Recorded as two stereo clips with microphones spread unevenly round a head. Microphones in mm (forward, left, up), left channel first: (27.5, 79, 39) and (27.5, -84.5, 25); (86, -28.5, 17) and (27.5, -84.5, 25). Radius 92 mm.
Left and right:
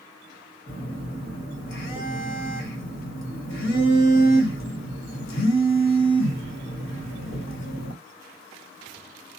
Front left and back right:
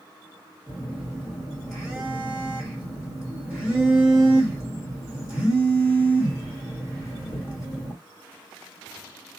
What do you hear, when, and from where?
0.7 s a phone buzzing: 130° left, 1.4 m